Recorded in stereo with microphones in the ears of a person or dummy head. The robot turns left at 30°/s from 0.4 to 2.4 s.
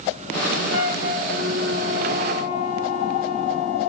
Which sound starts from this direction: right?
A flute, at 0.7 s.